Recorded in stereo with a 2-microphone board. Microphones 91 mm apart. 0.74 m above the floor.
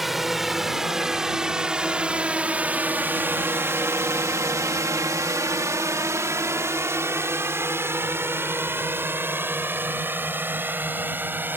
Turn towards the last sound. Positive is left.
turn(degrees=-25)  # may be behind; listen again after turning